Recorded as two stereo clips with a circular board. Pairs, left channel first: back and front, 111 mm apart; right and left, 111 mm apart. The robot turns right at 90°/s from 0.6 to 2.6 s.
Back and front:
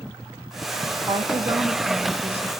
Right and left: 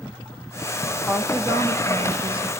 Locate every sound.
1.1 s a woman speaking: straight ahead, 0.8 m; by 2.5 s 130° left, 0.8 m